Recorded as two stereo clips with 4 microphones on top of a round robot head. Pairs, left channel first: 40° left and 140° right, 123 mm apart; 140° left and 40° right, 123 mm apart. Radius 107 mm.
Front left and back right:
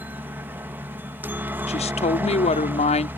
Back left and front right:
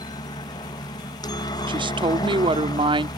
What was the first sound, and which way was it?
A helicopter, 160° left.